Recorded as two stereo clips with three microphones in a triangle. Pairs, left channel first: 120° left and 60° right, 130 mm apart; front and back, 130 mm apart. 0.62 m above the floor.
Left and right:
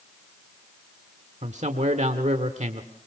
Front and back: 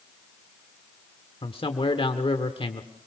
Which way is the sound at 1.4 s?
45° right.